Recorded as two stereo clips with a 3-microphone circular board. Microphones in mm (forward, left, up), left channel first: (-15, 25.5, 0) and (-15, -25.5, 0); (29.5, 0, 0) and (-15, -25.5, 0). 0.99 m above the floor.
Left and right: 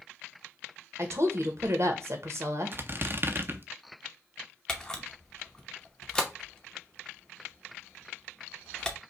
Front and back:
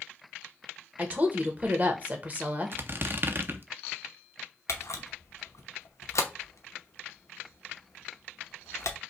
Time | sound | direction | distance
1.0 | a woman speaking | 95° right | 0.9 m
2.7 | a squeak | 120° right | 0.5 m
4.7 | a camera shutter | 10° left | 0.8 m